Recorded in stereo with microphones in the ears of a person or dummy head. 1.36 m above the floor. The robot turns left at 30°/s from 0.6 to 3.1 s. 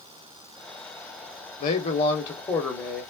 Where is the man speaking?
45° left, 1.0 m; by 3.0 s straight ahead, 1.0 m.